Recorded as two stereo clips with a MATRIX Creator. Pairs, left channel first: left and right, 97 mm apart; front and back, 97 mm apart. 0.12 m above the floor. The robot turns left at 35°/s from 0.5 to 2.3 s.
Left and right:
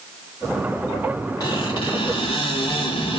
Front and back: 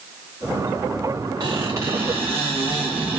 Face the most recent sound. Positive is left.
turn(degrees=105)